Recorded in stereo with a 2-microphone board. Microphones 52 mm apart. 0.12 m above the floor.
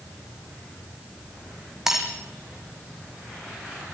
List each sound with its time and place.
1.9 s breaking glass: 10° right (ahead or behind), 4 m